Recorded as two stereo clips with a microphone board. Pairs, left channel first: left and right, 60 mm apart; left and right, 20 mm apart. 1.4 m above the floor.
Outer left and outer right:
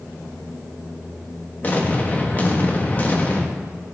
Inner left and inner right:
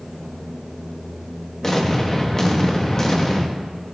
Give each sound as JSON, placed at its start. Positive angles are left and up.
{"t": 1.6, "sound": "an explosion", "side_deg": 30, "distance_m": 1.4}